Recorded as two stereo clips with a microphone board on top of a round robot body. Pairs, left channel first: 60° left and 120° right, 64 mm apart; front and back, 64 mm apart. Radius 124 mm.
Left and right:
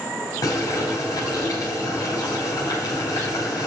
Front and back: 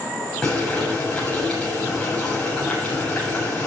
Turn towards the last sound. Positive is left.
turn(degrees=75)